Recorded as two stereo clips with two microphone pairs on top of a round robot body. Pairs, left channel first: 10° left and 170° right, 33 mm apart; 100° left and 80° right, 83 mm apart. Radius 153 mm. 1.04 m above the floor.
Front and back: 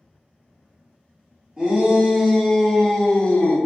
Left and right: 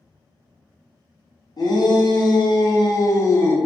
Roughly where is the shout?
Behind left.